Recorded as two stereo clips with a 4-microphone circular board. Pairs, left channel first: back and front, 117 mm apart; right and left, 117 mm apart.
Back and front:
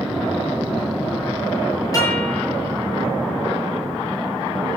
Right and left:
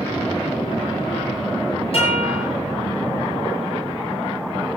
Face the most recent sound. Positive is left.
turn(degrees=-120)